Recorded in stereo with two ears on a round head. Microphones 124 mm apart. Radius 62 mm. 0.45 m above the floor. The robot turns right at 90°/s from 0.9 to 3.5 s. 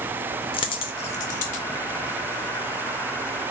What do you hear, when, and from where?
0.5 s a dropped coin: 35° left (ahead or behind), 0.5 m; by 1.6 s 55° left (ahead or behind), 0.5 m